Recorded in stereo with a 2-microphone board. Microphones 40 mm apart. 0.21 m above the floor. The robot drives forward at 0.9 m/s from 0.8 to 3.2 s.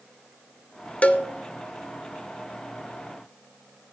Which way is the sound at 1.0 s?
35° left (ahead or behind).